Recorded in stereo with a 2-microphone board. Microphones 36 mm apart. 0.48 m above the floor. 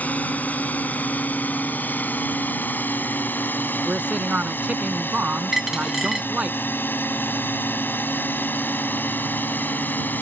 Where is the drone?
50° left (ahead or behind); by 10.2 s 60° left (ahead or behind).